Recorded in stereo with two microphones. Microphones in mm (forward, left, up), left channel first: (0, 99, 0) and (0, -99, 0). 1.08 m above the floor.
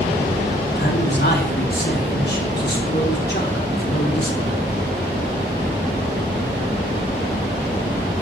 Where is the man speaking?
55° left (ahead or behind), 3 m.